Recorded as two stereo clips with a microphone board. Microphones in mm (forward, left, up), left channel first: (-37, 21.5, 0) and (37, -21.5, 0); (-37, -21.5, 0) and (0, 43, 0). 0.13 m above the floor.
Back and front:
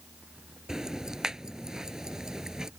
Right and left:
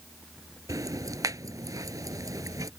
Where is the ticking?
50° left.